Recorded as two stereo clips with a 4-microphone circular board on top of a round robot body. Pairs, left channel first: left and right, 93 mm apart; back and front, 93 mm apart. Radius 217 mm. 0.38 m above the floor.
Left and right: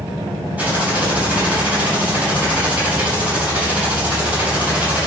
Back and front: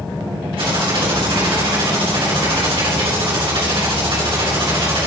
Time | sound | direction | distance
0.6 | typing on a keyboard | 15° right | 4 m